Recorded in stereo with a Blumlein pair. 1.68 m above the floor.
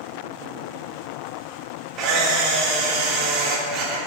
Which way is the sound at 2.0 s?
30° right.